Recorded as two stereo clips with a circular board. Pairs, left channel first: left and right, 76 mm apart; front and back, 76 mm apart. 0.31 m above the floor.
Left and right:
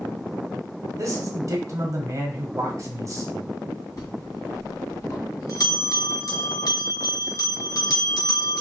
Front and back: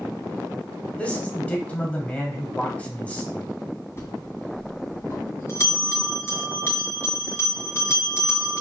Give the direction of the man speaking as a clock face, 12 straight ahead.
2 o'clock.